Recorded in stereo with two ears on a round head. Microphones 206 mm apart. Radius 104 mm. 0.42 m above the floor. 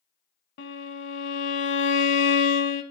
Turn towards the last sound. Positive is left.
turn(degrees=55)  # may be behind; listen again after turning